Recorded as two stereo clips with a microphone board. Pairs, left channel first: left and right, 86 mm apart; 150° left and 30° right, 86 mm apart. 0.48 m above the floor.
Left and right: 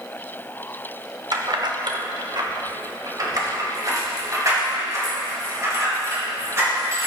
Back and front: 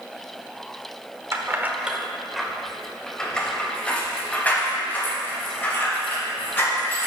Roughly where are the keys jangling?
Right.